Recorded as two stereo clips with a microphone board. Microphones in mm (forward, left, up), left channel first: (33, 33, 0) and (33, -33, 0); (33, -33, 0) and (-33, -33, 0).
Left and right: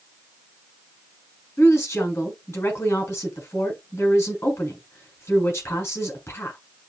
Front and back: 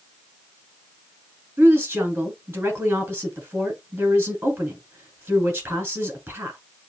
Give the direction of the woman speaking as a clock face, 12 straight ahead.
8 o'clock.